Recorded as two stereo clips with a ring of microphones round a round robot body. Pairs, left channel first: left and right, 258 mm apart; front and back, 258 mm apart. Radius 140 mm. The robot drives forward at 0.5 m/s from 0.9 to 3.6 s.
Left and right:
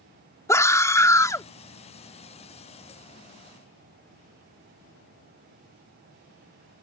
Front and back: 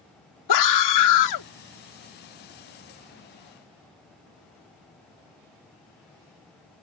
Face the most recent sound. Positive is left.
turn(degrees=20)